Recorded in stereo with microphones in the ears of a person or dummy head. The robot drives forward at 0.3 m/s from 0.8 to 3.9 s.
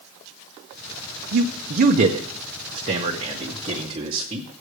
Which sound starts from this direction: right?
A man speaking, at 1.3 s.